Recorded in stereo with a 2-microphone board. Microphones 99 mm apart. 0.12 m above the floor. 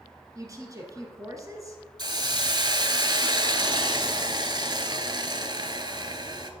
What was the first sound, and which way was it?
A woman speaking, 35° right (ahead or behind).